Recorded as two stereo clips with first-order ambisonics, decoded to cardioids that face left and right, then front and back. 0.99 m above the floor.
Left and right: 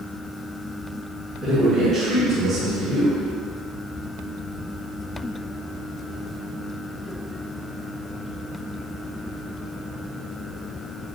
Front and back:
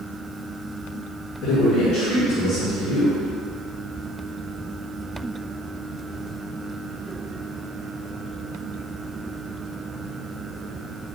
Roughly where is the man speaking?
Ahead right.